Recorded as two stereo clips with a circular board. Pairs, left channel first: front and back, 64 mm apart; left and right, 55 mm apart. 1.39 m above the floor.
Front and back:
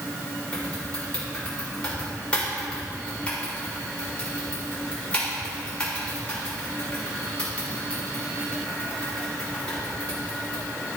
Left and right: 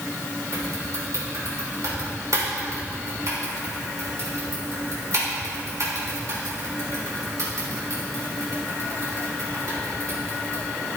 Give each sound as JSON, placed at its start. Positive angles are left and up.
{"t": 0.5, "sound": "typing on a keyboard", "azimuth_deg": -75, "distance_m": 3.5}